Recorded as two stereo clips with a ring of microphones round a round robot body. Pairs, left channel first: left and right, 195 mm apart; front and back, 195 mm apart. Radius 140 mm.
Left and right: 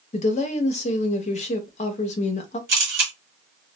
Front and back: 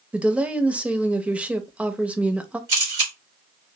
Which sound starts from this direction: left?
A woman speaking, at 0.1 s.